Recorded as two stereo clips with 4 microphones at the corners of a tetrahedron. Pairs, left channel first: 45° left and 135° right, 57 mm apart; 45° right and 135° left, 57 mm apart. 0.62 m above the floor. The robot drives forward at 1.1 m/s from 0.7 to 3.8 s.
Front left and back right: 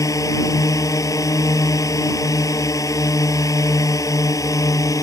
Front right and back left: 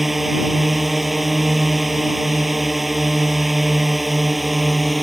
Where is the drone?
45° left.